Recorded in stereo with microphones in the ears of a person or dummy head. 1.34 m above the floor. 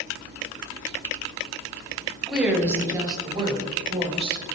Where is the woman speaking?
5° right (ahead or behind), 1.0 m; by 4.5 s 35° right (ahead or behind), 2 m.